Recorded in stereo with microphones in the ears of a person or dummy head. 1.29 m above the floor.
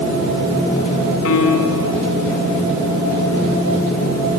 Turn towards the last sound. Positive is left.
turn(degrees=80)